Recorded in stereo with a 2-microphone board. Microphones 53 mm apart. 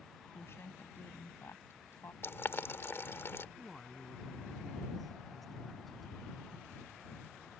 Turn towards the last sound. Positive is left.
turn(degrees=5)  # may be behind; listen again after turning